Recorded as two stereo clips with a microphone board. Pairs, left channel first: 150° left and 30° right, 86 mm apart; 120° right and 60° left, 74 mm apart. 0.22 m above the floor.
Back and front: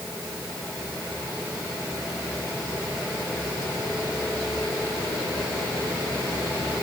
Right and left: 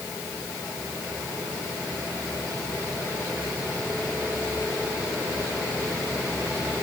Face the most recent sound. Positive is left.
No sound to turn to.